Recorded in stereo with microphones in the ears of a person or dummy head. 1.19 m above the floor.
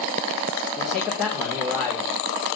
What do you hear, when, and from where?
0.8 s a man speaking: centre (ahead or behind), 3 m